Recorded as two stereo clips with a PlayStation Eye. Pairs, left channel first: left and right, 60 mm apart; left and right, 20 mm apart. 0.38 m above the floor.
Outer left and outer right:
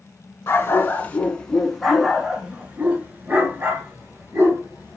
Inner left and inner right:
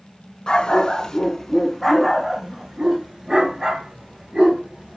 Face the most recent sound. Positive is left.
turn(degrees=-50)  # may be behind; listen again after turning